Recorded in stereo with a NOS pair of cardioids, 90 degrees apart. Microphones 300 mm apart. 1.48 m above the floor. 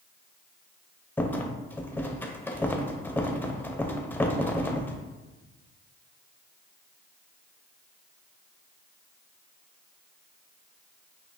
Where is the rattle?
5° left, 0.5 m.